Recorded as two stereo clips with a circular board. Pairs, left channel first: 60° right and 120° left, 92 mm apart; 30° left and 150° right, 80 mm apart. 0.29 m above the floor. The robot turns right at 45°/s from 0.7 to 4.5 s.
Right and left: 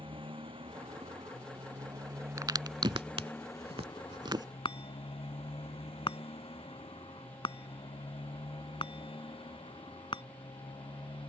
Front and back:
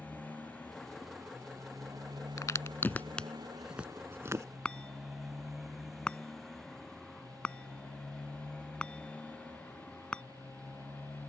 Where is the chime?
45° right.